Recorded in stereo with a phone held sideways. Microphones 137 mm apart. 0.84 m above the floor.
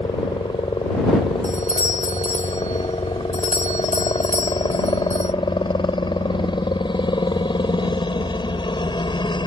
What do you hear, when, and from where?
0.0 s a helicopter: 35° left (ahead or behind)
1.4 s a doorbell: 60° left (ahead or behind)